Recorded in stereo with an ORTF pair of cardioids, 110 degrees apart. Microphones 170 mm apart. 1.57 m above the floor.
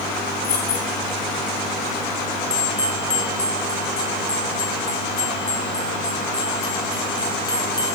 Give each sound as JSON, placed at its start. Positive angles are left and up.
{"t": 0.4, "sound": "keys jangling", "azimuth_deg": 65, "distance_m": 7.5}
{"t": 2.5, "sound": "a bell", "azimuth_deg": 25, "distance_m": 3.0}